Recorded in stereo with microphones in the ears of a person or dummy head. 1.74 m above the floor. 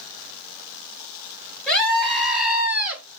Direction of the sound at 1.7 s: 5° left (ahead or behind).